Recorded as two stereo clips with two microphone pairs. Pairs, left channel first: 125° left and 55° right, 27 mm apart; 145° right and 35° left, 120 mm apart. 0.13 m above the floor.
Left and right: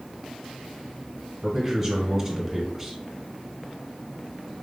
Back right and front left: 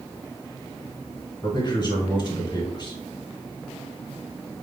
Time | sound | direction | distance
1.4 | a man speaking | 135° right | 1.4 m